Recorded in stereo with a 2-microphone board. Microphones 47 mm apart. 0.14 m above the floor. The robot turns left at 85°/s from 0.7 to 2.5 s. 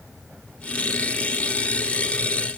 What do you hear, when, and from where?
Only background noise.